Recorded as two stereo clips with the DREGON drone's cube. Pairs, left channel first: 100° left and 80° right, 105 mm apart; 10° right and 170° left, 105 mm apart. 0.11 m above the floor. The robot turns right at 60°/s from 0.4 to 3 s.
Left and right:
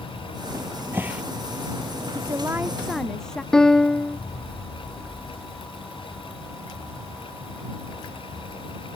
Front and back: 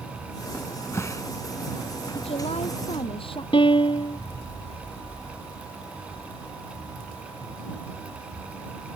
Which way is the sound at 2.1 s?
35° right.